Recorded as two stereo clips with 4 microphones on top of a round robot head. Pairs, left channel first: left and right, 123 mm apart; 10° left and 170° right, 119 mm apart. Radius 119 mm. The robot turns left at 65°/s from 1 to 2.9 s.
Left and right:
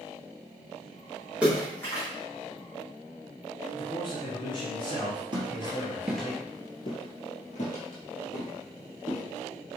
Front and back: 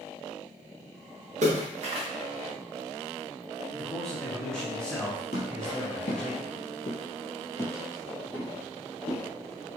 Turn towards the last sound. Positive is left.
turn(degrees=90)